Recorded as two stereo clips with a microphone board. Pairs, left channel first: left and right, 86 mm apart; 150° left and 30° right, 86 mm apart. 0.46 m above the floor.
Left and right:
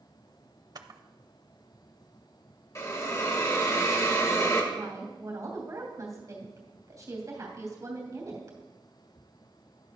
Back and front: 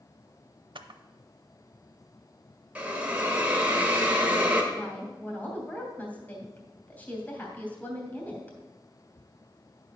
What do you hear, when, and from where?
0.8 s a camera shutter: 50° right, 0.6 m
2.8 s a hiss: 40° left, 1.4 m
4.7 s a woman speaking: 140° right, 2.5 m